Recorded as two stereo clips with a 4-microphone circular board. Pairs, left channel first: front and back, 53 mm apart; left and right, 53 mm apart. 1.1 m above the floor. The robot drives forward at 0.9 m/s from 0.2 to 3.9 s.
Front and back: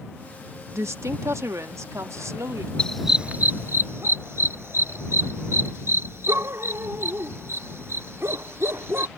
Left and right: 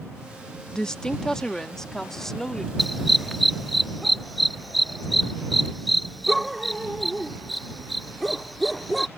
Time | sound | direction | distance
0.7 | a woman speaking | 165° left | ?
2.8 | a dog barking | straight ahead | ?